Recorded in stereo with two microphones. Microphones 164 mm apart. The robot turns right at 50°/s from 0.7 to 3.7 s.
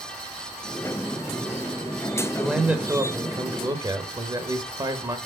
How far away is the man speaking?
About 0.9 m.